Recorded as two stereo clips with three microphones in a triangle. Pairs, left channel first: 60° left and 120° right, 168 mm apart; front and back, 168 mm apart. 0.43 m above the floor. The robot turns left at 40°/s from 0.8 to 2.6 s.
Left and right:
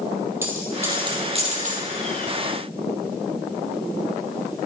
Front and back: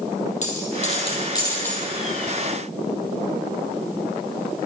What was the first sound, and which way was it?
A dropped coin, 45° right.